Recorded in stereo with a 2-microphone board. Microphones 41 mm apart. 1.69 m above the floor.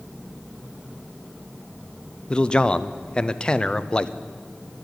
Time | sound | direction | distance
2.3 | a man speaking | 20° left (ahead or behind) | 0.5 m